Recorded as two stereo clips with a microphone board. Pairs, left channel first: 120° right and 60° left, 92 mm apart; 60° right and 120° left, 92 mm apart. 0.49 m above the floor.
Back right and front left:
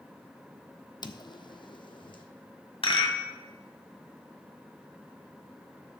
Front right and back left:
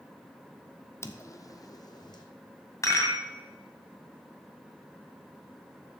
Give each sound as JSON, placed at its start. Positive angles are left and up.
{"t": 1.0, "sound": "footsteps", "azimuth_deg": -115, "distance_m": 0.7}
{"t": 2.8, "sound": "a rattle", "azimuth_deg": -115, "distance_m": 1.8}